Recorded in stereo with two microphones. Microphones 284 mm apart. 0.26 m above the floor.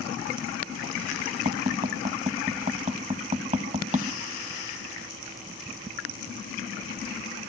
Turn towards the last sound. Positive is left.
turn(degrees=-25)  # may be behind; listen again after turning